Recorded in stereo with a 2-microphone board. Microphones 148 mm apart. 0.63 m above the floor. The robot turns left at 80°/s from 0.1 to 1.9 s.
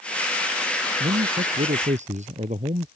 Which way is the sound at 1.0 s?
55° right.